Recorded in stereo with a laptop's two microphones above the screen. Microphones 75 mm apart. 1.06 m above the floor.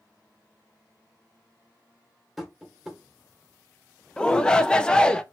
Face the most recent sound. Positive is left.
turn(degrees=10)  # may be behind; listen again after turning